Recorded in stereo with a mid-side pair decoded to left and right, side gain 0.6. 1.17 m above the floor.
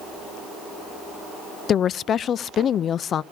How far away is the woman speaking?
About 0.5 m.